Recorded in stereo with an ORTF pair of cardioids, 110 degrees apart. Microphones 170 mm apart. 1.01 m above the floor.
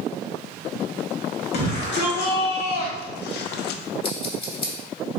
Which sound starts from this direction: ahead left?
Scissors, at 4.0 s.